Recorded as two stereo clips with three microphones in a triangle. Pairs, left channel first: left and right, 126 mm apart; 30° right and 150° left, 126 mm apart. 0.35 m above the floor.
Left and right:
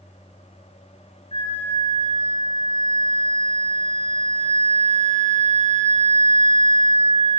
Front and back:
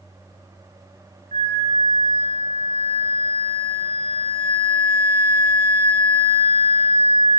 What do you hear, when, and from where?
1.3 s a flute: 130° left, 1.6 m